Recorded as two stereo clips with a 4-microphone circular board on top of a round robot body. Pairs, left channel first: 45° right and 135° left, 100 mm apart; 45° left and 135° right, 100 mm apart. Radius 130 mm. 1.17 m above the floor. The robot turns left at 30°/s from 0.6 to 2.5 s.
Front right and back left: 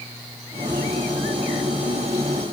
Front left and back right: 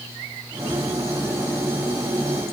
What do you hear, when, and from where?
Only background noise.